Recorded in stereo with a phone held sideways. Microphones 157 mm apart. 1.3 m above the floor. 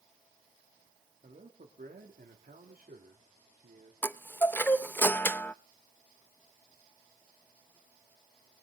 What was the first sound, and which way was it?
A man speaking, 55° right (ahead or behind).